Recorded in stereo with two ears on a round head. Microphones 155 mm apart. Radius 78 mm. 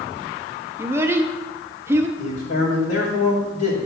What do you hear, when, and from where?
0.8 s a child speaking: 15° right (ahead or behind), 0.6 m
2.2 s a man speaking: 70° left (ahead or behind), 2 m